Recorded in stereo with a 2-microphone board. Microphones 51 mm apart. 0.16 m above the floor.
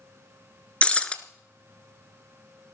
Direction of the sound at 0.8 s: 25° left (ahead or behind).